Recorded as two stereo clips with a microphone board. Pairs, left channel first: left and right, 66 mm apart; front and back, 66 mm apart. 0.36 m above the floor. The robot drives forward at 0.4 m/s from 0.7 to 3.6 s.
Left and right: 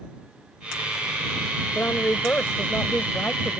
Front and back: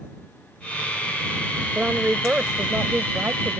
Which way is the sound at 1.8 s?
115° left.